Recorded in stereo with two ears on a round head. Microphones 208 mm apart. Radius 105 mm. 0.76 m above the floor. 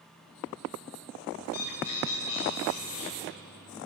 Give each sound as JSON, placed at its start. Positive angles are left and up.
{"t": 1.4, "sound": "a bird", "side_deg": 75, "distance_m": 6.5}